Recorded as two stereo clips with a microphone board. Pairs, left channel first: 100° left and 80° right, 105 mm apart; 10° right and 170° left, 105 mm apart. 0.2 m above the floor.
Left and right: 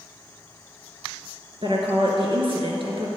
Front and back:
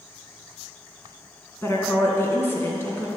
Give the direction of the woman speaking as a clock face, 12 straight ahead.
2 o'clock.